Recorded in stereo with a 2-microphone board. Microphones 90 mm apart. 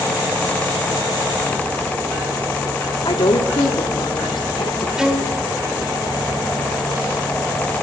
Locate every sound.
3.0 s a woman speaking: 70° left (ahead or behind), 2 m; by 4.9 s 80° left, 3 m
5.0 s a violin: 5° right (ahead or behind), 2 m